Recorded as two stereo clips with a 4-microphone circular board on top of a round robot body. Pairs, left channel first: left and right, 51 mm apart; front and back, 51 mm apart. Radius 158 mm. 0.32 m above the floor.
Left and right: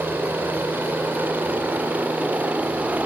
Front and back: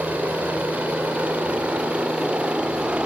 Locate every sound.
0.0 s a helicopter: 125° right